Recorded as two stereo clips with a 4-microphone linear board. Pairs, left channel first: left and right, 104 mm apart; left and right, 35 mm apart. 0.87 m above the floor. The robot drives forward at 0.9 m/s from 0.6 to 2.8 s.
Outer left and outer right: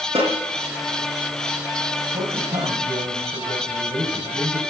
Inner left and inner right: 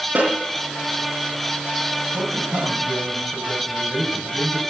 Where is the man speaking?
70° right (ahead or behind), 4.5 m; by 4.6 s 65° right (ahead or behind), 5 m.